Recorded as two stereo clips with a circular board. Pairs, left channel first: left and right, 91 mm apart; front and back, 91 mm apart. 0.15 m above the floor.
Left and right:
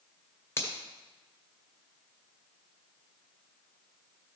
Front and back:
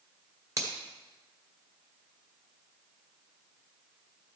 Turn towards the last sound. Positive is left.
turn(degrees=140)